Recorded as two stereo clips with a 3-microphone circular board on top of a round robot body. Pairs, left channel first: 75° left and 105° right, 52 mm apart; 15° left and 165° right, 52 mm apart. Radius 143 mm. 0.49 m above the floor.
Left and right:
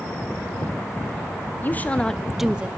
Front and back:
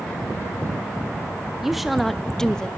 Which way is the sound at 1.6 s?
110° left.